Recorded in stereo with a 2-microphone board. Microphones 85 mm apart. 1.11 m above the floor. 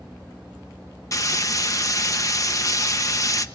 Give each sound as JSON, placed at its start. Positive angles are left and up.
{"t": 1.1, "sound": "frying", "side_deg": 40, "distance_m": 1.0}